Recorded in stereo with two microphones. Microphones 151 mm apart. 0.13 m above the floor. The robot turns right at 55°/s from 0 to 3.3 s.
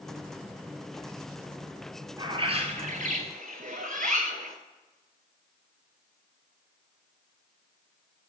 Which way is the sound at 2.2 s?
150° right.